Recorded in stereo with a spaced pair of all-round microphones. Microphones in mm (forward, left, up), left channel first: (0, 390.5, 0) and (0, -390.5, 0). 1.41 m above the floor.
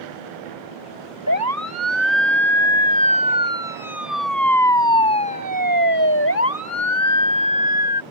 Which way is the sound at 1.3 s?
20° right (ahead or behind).